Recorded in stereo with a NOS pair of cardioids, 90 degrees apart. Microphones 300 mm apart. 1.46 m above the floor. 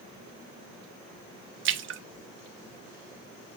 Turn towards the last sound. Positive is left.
turn(degrees=-45)